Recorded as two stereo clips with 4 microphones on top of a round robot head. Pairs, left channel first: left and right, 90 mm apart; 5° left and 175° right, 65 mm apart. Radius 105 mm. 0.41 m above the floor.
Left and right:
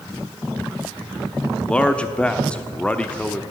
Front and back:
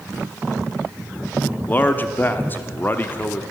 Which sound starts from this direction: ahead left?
A man speaking, at 1.7 s.